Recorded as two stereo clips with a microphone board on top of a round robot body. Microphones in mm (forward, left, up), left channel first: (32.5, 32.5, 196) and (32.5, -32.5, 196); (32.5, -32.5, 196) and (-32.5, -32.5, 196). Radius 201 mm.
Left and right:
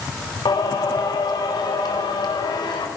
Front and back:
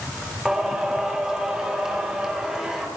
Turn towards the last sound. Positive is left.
turn(degrees=100)